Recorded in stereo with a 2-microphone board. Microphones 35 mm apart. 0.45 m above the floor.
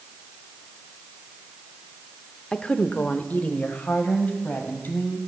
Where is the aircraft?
I don't hear an aircraft.